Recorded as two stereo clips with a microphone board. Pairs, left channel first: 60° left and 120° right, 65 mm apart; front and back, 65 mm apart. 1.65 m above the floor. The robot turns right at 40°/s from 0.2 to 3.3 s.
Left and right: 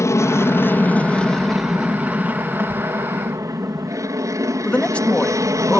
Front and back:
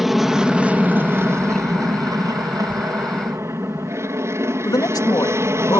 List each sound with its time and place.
0.0 s an aircraft: 95° left; by 5.8 s 140° right
2.7 s writing: 65° right; by 2.8 s 60° right
4.7 s a man speaking: 10° right